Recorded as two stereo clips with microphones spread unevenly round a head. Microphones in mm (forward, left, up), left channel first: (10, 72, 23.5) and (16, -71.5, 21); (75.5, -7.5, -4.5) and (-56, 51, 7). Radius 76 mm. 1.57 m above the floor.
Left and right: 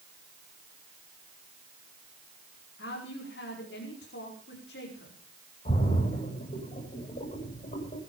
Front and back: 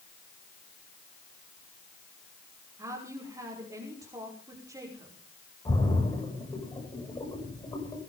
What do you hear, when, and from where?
2.8 s a woman speaking: 90° left, 5.5 m
5.7 s a splash: 45° left, 8.5 m